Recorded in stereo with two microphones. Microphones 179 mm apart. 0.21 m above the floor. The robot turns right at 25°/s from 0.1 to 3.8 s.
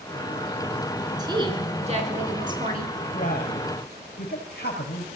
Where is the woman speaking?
155° right, 3 m; by 2.9 s 110° right, 3 m.